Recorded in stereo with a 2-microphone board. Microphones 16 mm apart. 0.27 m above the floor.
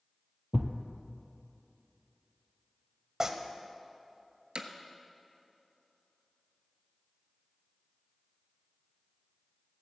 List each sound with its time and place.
0.5 s a thud: 20° right (ahead or behind), 1.1 m
3.2 s tearing paper: 30° right (ahead or behind), 0.9 m
4.5 s hammering: 65° right (ahead or behind), 1.0 m